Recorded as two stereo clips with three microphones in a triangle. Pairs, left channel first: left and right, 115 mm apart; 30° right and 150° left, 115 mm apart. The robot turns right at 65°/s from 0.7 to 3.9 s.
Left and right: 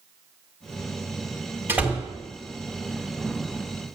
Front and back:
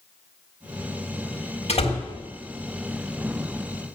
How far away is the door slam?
About 1.7 m.